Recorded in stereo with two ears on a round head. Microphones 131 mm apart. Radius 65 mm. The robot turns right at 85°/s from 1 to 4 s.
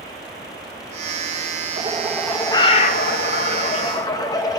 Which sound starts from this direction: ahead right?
A bird, at 1.8 s.